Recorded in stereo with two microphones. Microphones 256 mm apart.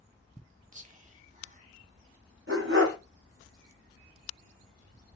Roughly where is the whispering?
Right.